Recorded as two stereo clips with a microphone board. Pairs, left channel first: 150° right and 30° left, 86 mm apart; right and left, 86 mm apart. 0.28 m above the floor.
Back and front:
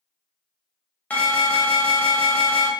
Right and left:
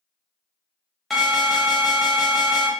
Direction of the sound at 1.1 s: Straight behind.